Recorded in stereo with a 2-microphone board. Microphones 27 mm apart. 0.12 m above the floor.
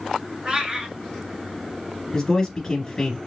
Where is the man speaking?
15° left (ahead or behind), 1.4 m.